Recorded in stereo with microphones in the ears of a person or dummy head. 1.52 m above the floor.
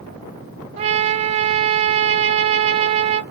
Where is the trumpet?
35° right (ahead or behind), 0.7 m.